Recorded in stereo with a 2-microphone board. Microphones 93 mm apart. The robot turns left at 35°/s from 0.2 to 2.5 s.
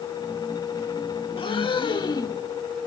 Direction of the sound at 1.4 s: 80° left.